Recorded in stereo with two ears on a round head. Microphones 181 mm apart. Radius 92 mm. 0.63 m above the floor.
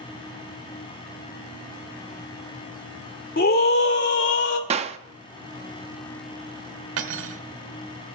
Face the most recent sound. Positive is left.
turn(degrees=-70)  # may be behind; listen again after turning